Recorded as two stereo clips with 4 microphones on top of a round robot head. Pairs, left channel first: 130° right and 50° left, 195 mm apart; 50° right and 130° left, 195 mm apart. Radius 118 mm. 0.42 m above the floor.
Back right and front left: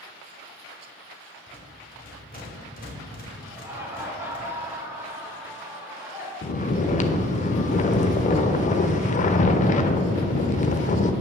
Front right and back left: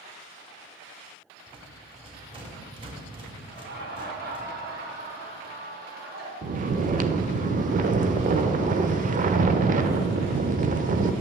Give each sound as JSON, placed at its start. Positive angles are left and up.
{"t": 1.5, "sound": "a rattle", "azimuth_deg": -165, "distance_m": 1.7}
{"t": 3.5, "sound": "laughter", "azimuth_deg": 125, "distance_m": 1.3}
{"t": 6.4, "sound": "snoring", "azimuth_deg": 180, "distance_m": 0.5}